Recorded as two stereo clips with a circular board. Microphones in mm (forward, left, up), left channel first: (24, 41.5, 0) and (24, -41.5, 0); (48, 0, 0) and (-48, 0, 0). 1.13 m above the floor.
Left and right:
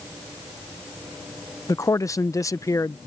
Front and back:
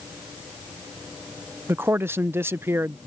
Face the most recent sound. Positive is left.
turn(degrees=120)